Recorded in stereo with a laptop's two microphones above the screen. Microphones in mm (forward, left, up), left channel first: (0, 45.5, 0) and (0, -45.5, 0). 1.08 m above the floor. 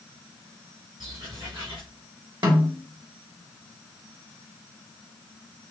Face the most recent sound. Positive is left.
turn(degrees=-50)  # may be behind; listen again after turning